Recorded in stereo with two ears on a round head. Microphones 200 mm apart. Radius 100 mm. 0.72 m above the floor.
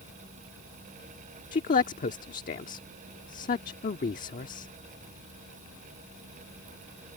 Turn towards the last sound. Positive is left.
turn(degrees=35)  # may be behind; listen again after turning